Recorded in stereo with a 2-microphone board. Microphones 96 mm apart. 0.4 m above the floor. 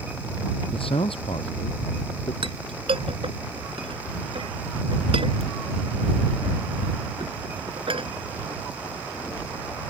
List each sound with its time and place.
0.7 s a man speaking: 70° left (ahead or behind)
2.4 s a clink: 70° right (ahead or behind)